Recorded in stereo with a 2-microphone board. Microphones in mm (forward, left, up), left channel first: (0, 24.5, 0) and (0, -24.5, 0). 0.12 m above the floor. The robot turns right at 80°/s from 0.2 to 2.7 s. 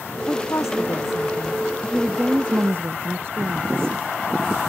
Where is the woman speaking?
35° left; by 4.0 s 125° right.